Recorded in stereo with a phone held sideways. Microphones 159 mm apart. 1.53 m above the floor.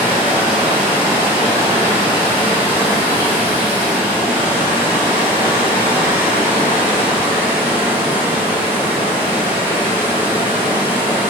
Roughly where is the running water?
Centre.